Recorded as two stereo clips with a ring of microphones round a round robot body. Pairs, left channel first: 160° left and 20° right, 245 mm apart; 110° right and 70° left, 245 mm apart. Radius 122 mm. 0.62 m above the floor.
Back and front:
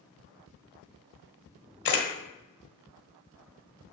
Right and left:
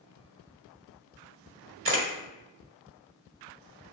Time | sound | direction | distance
1.9 | a camera shutter | 110° left | 1.1 m